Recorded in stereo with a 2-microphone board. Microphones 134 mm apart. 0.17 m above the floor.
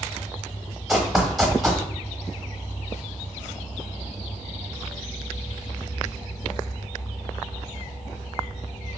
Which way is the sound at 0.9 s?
5° right (ahead or behind).